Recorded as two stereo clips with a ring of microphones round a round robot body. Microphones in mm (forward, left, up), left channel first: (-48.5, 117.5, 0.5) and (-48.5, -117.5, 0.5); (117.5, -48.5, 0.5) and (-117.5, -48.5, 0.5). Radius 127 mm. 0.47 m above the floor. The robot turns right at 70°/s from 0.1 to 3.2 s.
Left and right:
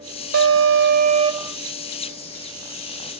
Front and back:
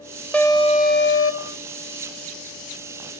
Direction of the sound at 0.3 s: 85° right.